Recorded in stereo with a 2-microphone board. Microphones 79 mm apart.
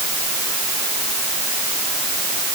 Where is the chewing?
No chewing in this recording.